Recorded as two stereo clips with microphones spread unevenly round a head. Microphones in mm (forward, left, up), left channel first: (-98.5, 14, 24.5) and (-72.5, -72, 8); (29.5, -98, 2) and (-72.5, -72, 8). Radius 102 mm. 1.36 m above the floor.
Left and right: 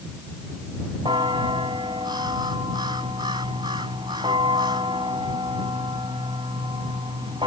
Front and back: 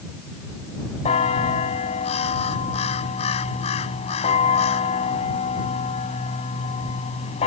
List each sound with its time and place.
1.1 s a bell: 5° right